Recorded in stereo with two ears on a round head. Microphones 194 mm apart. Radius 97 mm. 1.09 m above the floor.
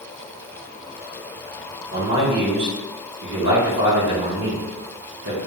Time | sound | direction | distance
1.9 | a man speaking | 55° right (ahead or behind) | 1.6 m